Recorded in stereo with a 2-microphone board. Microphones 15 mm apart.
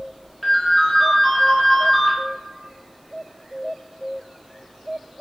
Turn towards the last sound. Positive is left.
turn(degrees=10)  # may be behind; listen again after turning